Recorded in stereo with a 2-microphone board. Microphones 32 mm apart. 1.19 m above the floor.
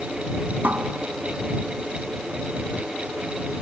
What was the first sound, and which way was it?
A cupboard door, 70° right (ahead or behind).